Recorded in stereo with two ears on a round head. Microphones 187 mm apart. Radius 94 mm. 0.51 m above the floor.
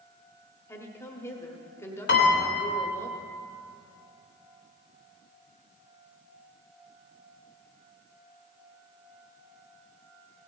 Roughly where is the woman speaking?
Centre.